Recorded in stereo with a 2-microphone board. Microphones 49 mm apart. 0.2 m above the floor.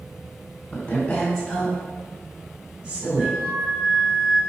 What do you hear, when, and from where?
0.7 s a woman speaking: 20° left (ahead or behind), 1.6 m; by 3.4 s 35° right (ahead or behind), 2 m
3.2 s a flute: 10° left (ahead or behind), 1.7 m